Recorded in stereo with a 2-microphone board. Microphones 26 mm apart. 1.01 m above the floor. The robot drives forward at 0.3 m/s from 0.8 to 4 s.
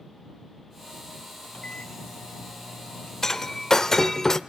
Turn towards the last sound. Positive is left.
turn(degrees=15)  # may be behind; listen again after turning